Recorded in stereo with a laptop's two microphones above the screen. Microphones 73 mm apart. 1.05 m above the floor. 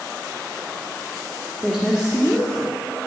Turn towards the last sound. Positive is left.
turn(degrees=20)  # may be behind; listen again after turning